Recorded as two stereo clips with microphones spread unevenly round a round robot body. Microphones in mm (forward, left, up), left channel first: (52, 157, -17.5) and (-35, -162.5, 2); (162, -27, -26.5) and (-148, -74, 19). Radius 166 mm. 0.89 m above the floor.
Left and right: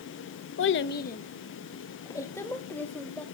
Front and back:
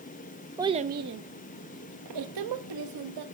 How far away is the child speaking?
About 0.5 m.